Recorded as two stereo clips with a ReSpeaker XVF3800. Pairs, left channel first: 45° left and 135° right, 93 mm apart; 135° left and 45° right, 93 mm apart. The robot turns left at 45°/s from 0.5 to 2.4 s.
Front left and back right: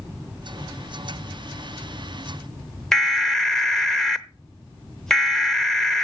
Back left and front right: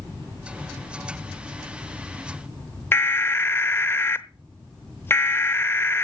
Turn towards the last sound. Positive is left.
turn(degrees=120)